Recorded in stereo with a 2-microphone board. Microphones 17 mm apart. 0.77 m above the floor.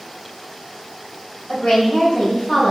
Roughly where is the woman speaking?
Left.